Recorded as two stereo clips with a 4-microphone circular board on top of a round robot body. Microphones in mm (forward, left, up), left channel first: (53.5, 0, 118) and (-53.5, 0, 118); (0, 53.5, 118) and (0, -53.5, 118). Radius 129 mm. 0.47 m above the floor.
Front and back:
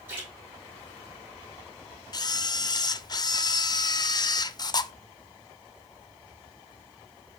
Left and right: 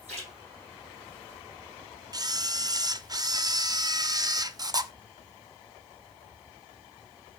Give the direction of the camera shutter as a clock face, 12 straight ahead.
1 o'clock.